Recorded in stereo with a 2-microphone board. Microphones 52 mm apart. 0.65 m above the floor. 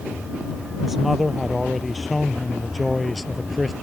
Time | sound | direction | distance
0.8 | a man speaking | 5° right (ahead or behind) | ?